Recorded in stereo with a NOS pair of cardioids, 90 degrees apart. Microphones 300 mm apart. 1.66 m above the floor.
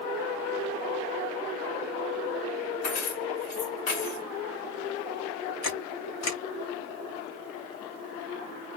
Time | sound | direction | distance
2.8 | keys jangling | 70° left | 2.5 m
5.6 | a camera shutter | 65° left | 3 m